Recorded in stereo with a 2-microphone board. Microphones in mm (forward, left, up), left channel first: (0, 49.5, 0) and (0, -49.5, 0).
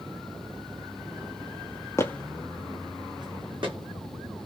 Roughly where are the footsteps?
Left.